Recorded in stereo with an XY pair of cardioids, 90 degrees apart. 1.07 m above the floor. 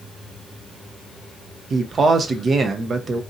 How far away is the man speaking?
About 0.6 m.